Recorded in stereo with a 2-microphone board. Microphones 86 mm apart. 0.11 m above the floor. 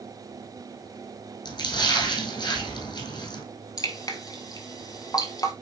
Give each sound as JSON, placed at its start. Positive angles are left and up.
{"t": 1.4, "sound": "a splash", "side_deg": 55, "distance_m": 3.0}
{"t": 3.8, "sound": "dripping", "side_deg": 40, "distance_m": 1.3}